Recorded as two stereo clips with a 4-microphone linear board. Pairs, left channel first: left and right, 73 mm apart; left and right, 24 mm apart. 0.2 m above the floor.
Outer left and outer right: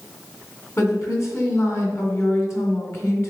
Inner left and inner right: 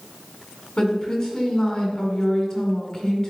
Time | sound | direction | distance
0.8 | a woman speaking | 40° left (ahead or behind) | 2 m